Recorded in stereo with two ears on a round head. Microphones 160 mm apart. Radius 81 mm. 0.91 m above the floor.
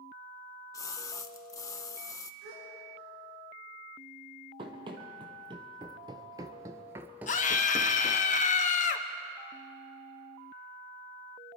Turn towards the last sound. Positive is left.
turn(degrees=45)  # may be behind; listen again after turning